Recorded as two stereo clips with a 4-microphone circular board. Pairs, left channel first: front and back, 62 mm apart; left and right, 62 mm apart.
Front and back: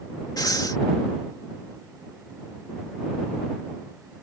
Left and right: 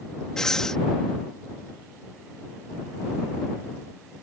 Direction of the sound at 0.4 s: 10° left.